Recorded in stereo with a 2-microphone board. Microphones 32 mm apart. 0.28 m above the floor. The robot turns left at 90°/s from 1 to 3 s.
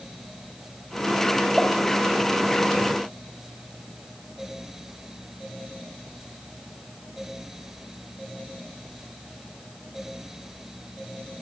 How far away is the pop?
About 0.9 m.